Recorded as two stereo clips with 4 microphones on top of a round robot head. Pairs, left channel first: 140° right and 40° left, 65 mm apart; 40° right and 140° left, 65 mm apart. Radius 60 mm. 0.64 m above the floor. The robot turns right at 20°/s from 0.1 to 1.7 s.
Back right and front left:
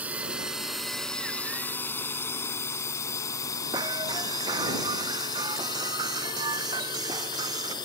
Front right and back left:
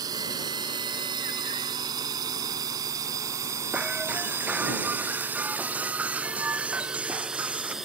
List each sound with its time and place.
0.0 s a drone: 110° left; by 7.8 s 135° right
3.7 s breaking glass: 70° left